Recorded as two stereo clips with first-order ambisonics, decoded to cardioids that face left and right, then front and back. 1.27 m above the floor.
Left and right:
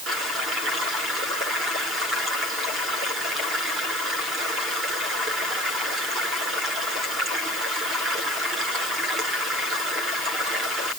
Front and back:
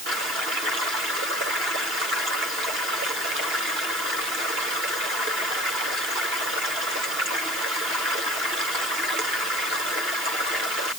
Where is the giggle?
No giggle in this recording.